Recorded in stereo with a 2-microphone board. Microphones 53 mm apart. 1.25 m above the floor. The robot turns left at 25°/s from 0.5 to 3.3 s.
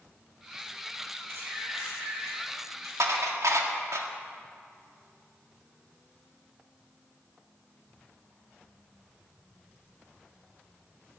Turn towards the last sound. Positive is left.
turn(degrees=-80)